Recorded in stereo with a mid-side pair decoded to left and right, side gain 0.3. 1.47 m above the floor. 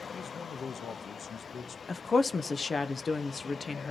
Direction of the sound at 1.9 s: 45° left.